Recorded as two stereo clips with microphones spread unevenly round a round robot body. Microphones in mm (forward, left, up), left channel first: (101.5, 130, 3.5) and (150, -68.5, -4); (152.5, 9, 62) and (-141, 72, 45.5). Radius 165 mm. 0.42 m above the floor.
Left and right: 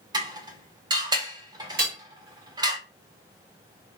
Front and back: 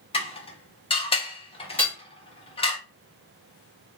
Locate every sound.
0.1 s dishes clattering: 60° right, 0.6 m
1.8 s hammering: 95° right, 1.6 m